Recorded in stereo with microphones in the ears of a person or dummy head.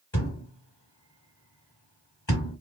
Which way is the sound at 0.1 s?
10° left (ahead or behind).